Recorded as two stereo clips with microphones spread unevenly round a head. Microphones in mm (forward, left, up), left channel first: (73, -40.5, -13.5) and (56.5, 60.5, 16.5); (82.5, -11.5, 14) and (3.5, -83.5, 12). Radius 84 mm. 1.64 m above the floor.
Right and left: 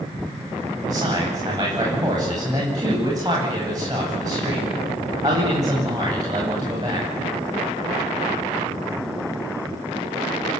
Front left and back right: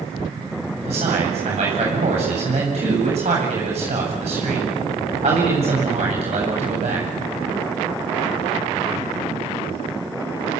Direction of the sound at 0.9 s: 165° left.